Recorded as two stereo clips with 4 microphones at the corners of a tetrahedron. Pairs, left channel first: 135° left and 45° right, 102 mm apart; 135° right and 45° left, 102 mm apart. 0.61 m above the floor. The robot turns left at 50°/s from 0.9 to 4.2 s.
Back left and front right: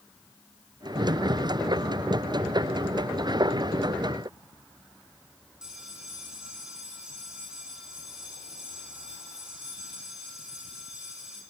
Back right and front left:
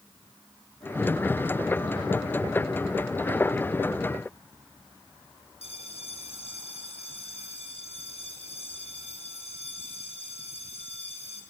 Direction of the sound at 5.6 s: 130° right.